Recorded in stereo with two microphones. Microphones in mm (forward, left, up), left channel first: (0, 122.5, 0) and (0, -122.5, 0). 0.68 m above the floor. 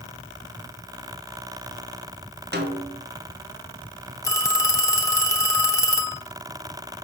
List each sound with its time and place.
2.5 s a snare drum: 45° right (ahead or behind), 1.6 m
4.2 s a phone ringing: 15° left (ahead or behind), 1.2 m